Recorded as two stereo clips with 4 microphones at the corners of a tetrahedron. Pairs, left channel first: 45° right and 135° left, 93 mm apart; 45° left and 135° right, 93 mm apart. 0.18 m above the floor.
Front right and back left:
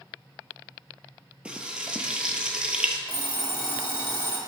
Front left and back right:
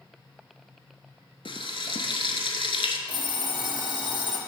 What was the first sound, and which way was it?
Frying, 55° left.